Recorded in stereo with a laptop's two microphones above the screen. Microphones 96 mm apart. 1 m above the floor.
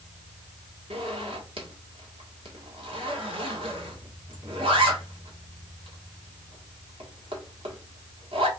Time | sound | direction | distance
0.9 | a zipper | 70° right (ahead or behind) | 1.4 m